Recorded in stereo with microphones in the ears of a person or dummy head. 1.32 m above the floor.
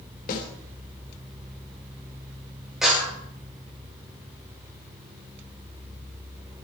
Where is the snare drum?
45° left (ahead or behind), 3.5 m.